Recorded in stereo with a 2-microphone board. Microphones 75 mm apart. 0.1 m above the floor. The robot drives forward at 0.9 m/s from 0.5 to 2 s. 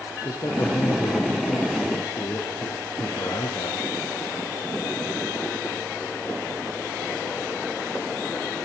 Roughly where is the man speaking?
Left.